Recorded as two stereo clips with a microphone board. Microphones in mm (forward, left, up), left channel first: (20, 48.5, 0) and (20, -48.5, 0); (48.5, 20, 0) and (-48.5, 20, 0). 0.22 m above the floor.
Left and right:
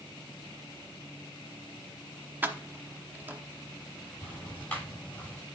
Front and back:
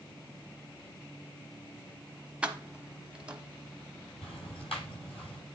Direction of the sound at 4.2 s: 15° left.